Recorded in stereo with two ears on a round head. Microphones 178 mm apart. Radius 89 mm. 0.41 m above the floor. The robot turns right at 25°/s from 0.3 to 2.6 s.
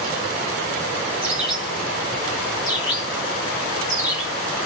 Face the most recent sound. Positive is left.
turn(degrees=20)  # may be behind; listen again after turning